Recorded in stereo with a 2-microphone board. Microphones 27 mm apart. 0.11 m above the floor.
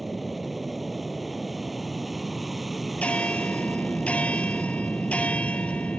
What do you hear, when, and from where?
0.0 s an aircraft: 5° right (ahead or behind)
3.0 s a bell: 60° left (ahead or behind)